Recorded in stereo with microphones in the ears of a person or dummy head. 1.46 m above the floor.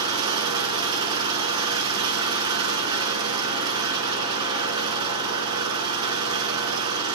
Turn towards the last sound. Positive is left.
turn(degrees=-20)  # may be behind; listen again after turning